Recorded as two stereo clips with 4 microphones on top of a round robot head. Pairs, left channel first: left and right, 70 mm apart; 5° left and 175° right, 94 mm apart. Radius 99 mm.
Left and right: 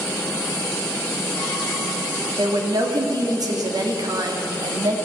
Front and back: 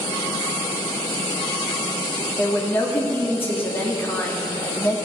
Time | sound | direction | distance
2.4 | a woman speaking | 65° right | 2.5 m